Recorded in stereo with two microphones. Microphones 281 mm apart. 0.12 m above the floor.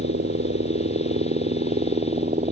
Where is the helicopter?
40° right (ahead or behind); by 2.5 s 25° right (ahead or behind).